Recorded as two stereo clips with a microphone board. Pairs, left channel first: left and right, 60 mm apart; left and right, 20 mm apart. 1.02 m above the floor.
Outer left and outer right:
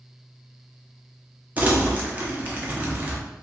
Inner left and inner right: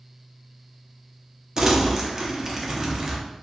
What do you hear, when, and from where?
1.6 s crumpling: 30° right (ahead or behind), 0.6 m